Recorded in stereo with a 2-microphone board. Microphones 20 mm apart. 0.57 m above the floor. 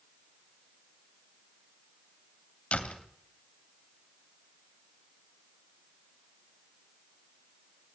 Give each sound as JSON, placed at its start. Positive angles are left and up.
{"t": 2.7, "sound": "a door slam", "side_deg": 75, "distance_m": 2.5}